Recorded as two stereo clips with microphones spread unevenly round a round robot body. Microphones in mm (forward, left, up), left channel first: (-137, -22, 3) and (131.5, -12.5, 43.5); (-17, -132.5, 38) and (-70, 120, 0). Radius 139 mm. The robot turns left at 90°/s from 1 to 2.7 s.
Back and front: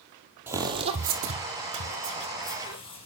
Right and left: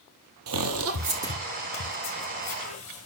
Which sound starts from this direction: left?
Footsteps, at 0.5 s.